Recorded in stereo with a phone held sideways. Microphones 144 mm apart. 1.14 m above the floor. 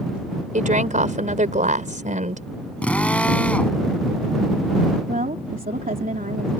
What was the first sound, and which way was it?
A woman speaking, 65° right (ahead or behind).